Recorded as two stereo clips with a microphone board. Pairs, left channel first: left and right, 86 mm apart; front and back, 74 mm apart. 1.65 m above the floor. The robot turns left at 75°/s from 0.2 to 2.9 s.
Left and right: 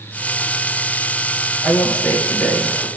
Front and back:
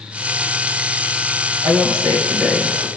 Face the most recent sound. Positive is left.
turn(degrees=85)